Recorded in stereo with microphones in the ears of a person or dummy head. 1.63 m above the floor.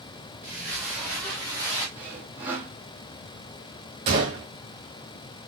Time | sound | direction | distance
0.4 | footsteps | 5° right (ahead or behind) | 1.7 m
1.9 | sawing | 15° right (ahead or behind) | 1.7 m
4.1 | a gunshot | 30° right (ahead or behind) | 1.5 m